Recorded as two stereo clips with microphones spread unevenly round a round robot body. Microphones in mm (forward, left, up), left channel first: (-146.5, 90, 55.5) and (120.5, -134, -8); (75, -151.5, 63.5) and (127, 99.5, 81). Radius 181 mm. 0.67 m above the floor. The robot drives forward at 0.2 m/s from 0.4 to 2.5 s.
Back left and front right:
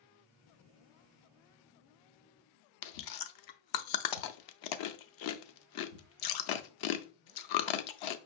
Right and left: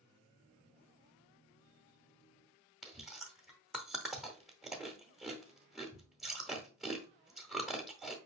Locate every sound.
2.8 s chewing: 165° left, 0.5 m